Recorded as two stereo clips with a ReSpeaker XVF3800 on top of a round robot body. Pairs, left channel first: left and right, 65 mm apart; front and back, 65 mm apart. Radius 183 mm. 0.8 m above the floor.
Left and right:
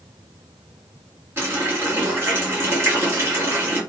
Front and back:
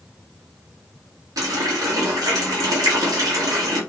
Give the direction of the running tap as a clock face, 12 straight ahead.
5 o'clock.